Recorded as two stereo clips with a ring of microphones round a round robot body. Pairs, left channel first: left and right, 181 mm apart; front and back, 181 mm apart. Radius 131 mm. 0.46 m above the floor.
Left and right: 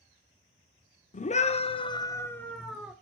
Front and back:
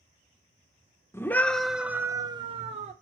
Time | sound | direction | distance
1.1 | a scream | 70° left | 1.1 m